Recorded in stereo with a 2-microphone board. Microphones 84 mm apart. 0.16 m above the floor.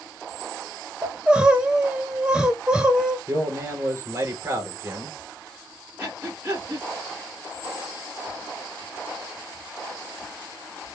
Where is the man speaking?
30° right (ahead or behind), 2.5 m.